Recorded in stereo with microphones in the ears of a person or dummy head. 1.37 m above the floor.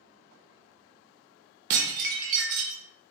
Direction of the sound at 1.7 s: 50° right (ahead or behind).